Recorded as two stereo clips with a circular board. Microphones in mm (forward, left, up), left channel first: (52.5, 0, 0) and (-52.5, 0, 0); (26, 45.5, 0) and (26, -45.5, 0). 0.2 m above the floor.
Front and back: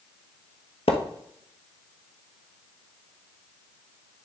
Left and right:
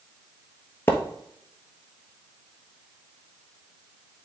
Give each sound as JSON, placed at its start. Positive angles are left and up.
{"t": 0.9, "sound": "a splash", "azimuth_deg": 25, "distance_m": 1.3}